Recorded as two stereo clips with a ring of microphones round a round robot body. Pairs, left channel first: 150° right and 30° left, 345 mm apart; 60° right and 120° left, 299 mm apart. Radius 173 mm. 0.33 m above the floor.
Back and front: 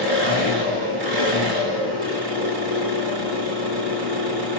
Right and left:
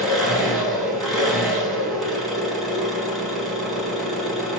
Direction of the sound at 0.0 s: 30° left.